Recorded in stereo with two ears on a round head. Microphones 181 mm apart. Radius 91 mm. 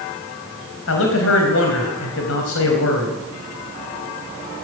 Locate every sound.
0.9 s a man speaking: 75° left (ahead or behind), 4 m